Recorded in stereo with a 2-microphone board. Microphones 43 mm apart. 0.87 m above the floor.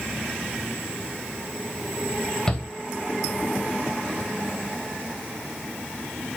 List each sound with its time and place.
2.5 s a shout: 20° left (ahead or behind), 4 m